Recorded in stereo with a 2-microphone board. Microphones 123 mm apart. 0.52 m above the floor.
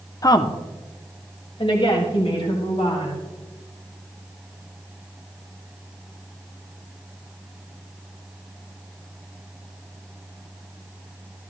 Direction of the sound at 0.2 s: 30° left (ahead or behind).